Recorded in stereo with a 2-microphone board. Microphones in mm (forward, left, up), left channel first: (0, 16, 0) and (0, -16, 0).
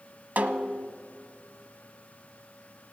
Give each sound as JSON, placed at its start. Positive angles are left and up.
{"t": 0.4, "sound": "a snare drum", "side_deg": -65, "distance_m": 0.8}